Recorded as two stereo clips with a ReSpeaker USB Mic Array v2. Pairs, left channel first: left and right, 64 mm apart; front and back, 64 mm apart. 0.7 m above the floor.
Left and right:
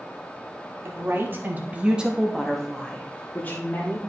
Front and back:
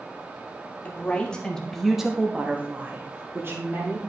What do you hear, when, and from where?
0.8 s a woman speaking: 60° right, 1.6 m; by 4.0 s 140° left, 2 m